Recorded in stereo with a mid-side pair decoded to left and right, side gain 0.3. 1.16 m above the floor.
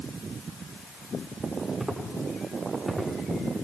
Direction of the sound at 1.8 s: 15° right.